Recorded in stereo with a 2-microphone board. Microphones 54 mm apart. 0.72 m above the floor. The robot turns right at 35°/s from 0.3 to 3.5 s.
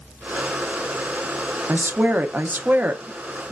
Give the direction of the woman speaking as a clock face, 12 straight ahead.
3 o'clock.